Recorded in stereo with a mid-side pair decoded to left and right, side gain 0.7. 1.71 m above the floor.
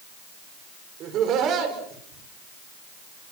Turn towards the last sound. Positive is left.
turn(degrees=-50)